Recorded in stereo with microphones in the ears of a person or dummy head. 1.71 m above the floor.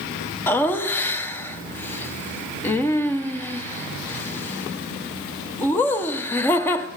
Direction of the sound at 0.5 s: 15° left (ahead or behind).